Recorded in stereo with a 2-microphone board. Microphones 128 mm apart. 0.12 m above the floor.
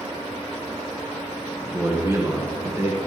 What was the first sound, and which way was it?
A man speaking, 20° right (ahead or behind).